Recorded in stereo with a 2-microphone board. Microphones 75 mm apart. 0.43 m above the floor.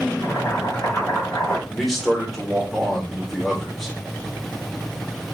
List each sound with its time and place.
0.2 s boiling: 40° left (ahead or behind), 1.9 m
1.7 s a man speaking: centre (ahead or behind), 1.3 m